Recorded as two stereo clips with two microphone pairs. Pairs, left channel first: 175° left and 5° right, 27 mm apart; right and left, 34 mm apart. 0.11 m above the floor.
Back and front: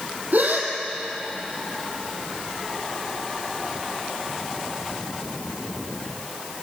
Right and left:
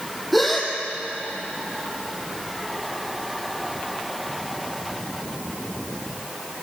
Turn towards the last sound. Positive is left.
turn(degrees=0)